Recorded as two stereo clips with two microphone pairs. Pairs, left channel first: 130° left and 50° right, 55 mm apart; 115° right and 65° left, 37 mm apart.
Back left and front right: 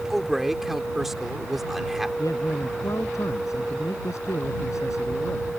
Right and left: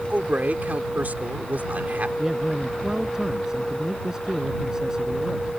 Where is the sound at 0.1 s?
35° left.